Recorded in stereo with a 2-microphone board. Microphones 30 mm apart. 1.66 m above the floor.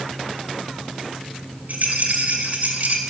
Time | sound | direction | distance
1.7 | a rattle | 65° right (ahead or behind) | 1.8 m